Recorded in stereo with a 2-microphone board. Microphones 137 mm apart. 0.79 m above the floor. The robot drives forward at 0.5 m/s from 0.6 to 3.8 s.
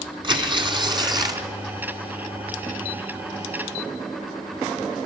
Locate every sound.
0.2 s tearing paper: 35° right (ahead or behind), 1.4 m; by 1.5 s 30° right (ahead or behind), 1.7 m